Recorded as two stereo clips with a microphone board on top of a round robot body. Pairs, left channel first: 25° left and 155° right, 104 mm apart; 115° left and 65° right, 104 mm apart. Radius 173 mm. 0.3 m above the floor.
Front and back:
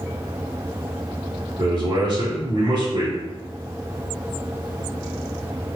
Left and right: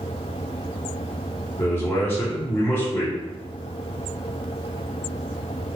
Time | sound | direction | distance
1.6 | a man speaking | 170° left | 1.8 m